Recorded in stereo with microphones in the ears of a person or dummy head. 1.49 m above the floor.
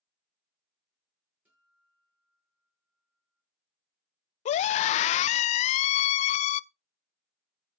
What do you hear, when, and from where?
1.4 s a guitar: 10° right (ahead or behind), 8 m
4.5 s a scream: 40° left (ahead or behind), 0.5 m